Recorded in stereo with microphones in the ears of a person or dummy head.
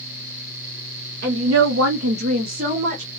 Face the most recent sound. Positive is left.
turn(degrees=-30)  # may be behind; listen again after turning